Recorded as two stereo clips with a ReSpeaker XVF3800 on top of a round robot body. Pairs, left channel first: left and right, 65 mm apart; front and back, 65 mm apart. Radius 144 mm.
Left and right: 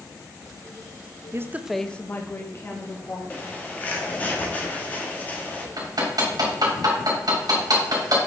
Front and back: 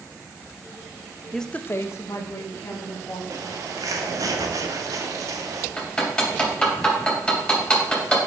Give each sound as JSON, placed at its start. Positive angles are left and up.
{"t": 1.3, "sound": "a woman speaking", "azimuth_deg": -85, "distance_m": 0.7}
{"t": 3.3, "sound": "a bird", "azimuth_deg": 155, "distance_m": 1.0}
{"t": 5.8, "sound": "hammering", "azimuth_deg": -80, "distance_m": 2.5}